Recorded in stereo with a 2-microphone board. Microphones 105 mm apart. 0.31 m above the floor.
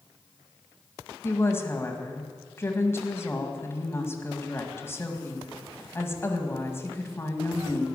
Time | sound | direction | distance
1.2 | a woman speaking | 25° left (ahead or behind) | 1.8 m